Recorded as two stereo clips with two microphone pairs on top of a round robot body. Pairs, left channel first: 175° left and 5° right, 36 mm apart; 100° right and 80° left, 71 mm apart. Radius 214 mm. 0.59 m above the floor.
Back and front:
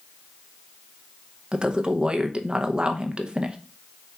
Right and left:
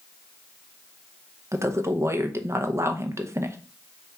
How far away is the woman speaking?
About 0.9 m.